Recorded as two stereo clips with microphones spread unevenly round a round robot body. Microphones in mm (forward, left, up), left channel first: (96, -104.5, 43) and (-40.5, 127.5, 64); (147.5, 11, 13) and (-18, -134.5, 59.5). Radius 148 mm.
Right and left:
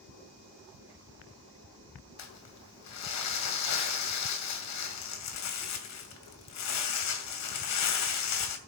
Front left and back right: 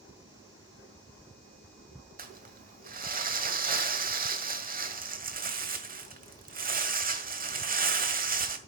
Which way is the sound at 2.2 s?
85° right.